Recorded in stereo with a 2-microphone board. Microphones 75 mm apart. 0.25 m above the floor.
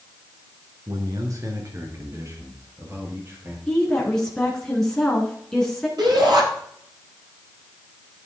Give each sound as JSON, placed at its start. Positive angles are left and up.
{"t": 0.9, "sound": "a man speaking", "side_deg": -55, "distance_m": 2.5}
{"t": 3.7, "sound": "a woman speaking", "side_deg": 5, "distance_m": 3.5}
{"t": 6.0, "sound": "a shout", "side_deg": -70, "distance_m": 7.5}